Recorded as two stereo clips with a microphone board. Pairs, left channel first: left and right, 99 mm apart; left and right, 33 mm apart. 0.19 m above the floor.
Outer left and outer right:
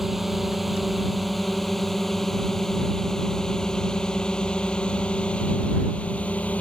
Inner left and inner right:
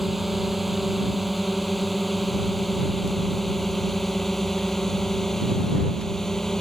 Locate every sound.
0.0 s a drone: centre (ahead or behind); by 6.6 s 15° left (ahead or behind)